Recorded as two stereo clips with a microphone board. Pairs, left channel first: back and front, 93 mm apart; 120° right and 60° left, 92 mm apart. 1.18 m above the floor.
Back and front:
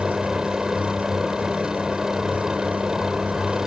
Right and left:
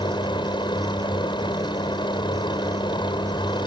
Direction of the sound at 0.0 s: 85° right.